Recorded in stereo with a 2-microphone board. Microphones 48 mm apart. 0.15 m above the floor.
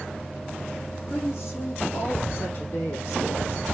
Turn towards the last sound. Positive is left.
turn(degrees=50)  # may be behind; listen again after turning